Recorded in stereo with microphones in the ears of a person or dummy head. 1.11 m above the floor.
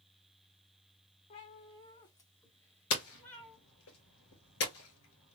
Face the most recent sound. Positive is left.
turn(degrees=65)  # may be behind; listen again after turning